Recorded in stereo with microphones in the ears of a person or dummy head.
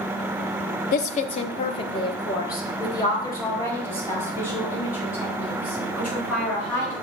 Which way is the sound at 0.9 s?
55° left (ahead or behind).